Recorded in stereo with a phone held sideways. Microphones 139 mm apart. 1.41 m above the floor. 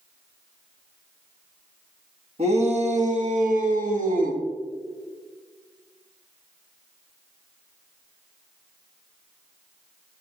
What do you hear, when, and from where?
2.4 s a shout: 45° right (ahead or behind), 1.8 m; by 4.4 s 80° right, 1.6 m